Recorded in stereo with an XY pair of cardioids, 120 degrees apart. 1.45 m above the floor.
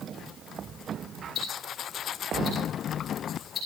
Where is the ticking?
45° left, 7 m.